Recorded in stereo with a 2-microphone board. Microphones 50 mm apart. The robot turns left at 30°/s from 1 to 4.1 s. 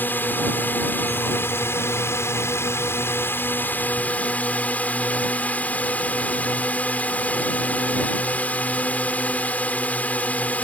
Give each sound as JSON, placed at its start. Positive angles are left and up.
{"t": 0.0, "sound": "a drone", "azimuth_deg": 130}